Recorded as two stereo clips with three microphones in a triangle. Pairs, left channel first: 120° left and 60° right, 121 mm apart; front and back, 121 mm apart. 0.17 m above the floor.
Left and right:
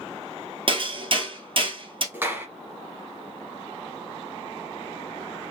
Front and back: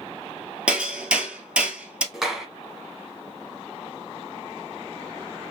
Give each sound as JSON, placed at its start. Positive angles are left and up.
{"t": 0.7, "sound": "hammering", "azimuth_deg": -100, "distance_m": 1.1}
{"t": 2.1, "sound": "a clap", "azimuth_deg": -100, "distance_m": 1.2}